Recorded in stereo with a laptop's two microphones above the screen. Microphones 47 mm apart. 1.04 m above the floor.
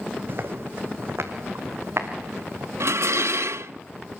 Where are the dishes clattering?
90° right, 0.7 m.